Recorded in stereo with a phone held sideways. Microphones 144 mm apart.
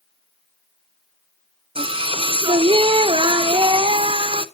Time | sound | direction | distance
1.8 | singing | 40° right (ahead or behind) | 0.7 m